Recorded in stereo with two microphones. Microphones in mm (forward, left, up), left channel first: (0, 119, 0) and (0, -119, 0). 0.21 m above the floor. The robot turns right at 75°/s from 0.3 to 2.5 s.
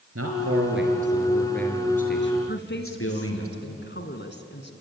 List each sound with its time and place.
0.1 s a man speaking: 90° right, 4.5 m; by 3.5 s 75° left, 4.5 m
2.5 s a woman speaking: 50° left (ahead or behind), 2 m